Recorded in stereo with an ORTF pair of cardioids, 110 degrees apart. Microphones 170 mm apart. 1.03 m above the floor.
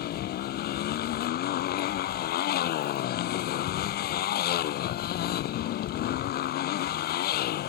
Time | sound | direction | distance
0.0 | a motorcycle | 65° left | ?